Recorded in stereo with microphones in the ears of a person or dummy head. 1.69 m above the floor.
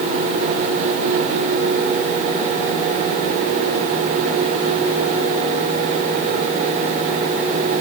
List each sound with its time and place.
Only background noise.